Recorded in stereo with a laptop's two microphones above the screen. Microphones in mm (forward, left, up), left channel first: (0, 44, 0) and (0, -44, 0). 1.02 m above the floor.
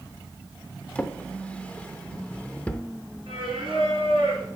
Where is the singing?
70° right (ahead or behind), 4 m.